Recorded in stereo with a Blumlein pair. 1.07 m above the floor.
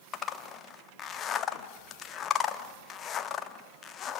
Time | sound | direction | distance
0.1 | a zipper | 25° left | 1.1 m